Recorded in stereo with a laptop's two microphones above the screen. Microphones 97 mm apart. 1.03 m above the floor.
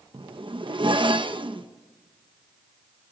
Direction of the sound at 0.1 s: 60° right (ahead or behind).